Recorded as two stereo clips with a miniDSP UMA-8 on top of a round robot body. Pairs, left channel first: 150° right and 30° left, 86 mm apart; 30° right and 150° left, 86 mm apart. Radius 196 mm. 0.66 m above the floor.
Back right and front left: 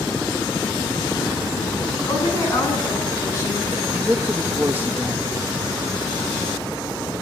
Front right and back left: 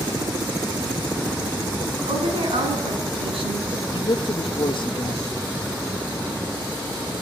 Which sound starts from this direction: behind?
A woman speaking, at 2.1 s.